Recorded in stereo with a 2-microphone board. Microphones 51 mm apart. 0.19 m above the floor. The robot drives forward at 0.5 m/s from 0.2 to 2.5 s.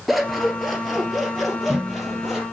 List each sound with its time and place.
0.1 s scissors: centre (ahead or behind), 2.5 m